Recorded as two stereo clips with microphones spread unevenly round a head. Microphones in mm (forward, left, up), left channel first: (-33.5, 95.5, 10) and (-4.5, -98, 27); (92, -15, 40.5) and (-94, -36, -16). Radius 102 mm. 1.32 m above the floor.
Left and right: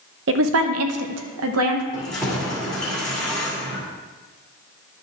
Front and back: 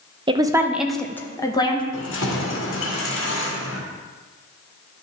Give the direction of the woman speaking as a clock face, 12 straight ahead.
3 o'clock.